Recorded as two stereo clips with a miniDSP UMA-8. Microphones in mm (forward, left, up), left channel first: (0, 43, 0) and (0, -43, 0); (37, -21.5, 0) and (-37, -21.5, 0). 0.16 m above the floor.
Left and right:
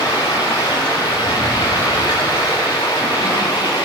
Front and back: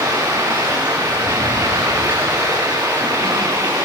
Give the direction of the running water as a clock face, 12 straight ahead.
8 o'clock.